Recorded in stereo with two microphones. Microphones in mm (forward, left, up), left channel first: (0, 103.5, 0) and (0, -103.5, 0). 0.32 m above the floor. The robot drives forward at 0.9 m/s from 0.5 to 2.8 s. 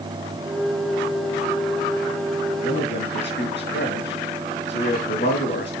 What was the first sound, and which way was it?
A man speaking, 60° left (ahead or behind).